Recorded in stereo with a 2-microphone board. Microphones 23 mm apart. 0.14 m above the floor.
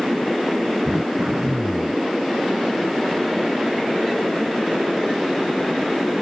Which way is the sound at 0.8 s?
30° right (ahead or behind).